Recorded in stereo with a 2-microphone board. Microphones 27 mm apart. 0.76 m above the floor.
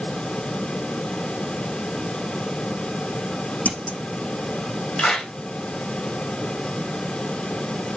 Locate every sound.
3.6 s scissors: 80° left, 7 m
5.0 s a clap: 35° left (ahead or behind), 3.5 m